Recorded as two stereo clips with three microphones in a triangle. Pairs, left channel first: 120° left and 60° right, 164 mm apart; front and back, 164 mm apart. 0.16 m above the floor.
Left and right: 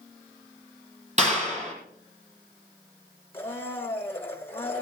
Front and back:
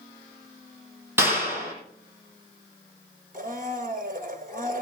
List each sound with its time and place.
1.2 s a clap: 105° right, 4.5 m
3.3 s a blender: 165° right, 1.7 m